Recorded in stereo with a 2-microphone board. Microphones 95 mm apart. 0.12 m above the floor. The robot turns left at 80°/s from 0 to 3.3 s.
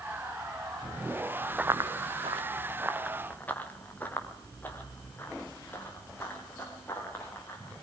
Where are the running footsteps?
10° right (ahead or behind), 0.7 m; by 7.7 s 25° left (ahead or behind), 8.5 m.